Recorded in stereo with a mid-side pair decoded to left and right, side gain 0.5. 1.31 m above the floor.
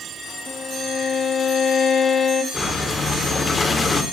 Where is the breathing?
30° left, 4.5 m.